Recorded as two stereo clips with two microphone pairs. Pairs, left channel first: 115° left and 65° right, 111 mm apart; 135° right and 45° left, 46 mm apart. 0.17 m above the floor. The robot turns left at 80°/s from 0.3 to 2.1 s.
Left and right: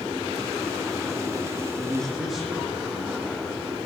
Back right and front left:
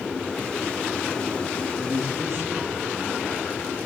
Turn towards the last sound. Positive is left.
turn(degrees=20)